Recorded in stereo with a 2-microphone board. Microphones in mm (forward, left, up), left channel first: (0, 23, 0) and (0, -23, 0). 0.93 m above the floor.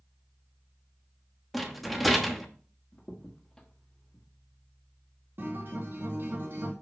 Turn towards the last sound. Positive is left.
turn(degrees=-55)  # may be behind; listen again after turning